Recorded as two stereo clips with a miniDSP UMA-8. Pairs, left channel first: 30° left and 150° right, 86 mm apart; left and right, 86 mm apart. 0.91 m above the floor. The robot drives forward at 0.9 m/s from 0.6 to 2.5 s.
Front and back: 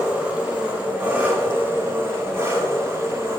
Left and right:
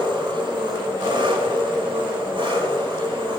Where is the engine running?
80° right, 6 m; by 3.4 s 95° right, 6 m.